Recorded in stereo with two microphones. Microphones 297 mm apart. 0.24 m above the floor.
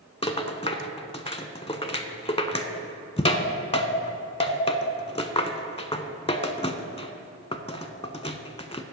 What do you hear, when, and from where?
0.2 s a rattle: 20° left (ahead or behind), 0.6 m